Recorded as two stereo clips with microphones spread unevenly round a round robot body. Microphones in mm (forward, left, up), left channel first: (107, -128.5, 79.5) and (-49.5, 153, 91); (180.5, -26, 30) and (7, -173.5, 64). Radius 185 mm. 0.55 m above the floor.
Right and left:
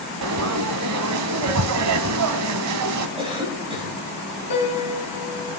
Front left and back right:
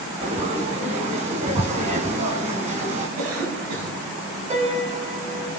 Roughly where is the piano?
Right.